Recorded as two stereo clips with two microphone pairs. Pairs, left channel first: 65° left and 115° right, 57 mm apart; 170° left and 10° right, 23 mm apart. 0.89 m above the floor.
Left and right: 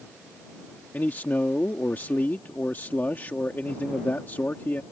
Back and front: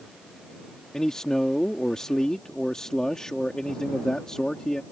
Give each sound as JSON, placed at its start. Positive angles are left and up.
{"t": 0.9, "sound": "a man speaking", "azimuth_deg": 120}